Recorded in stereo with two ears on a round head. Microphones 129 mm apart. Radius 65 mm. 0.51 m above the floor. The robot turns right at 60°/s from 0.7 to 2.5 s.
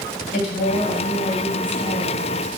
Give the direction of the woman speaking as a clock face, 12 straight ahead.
9 o'clock.